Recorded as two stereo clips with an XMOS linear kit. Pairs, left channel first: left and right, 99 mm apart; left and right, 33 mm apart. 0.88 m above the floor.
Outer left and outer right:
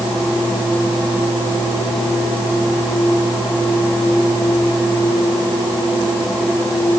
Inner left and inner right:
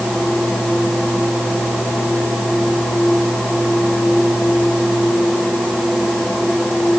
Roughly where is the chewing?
No chewing in this recording.